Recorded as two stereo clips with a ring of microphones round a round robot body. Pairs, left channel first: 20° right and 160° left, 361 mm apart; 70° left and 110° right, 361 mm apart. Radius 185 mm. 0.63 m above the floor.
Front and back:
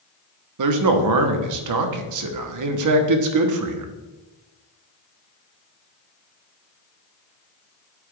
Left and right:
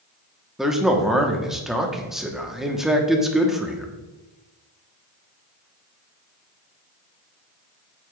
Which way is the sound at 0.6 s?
160° left.